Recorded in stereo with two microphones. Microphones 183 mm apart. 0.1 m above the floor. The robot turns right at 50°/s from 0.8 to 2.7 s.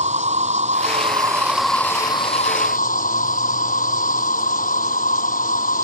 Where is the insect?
45° right; by 5.8 s 50° left.